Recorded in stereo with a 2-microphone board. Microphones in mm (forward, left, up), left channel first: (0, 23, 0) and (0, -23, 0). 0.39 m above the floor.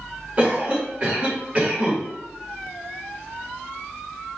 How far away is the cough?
About 1.6 m.